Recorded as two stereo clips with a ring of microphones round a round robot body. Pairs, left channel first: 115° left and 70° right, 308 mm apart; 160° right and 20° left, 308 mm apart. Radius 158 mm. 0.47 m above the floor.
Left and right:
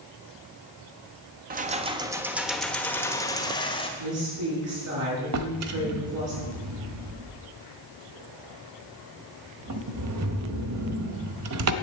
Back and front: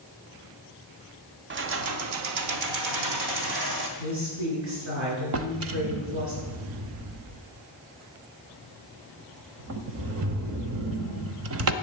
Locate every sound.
1.5 s keys jangling: 15° right, 0.9 m; by 3.9 s 40° left, 1.8 m
4.0 s a woman speaking: 30° right, 8 m
5.3 s a drawer: 25° right, 1.0 m